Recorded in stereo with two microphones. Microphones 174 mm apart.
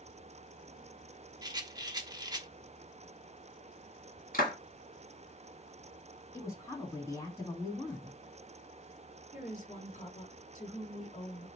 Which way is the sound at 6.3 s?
15° left (ahead or behind).